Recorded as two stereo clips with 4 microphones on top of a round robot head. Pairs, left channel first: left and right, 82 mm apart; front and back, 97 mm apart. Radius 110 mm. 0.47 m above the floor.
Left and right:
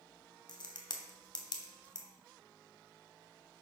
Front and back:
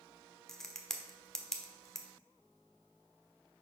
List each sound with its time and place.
0.5 s a crack: 85° left, 1.2 m